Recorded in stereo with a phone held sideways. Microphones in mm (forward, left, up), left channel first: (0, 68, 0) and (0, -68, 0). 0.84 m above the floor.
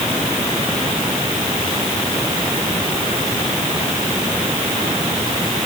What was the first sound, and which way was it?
Only background noise.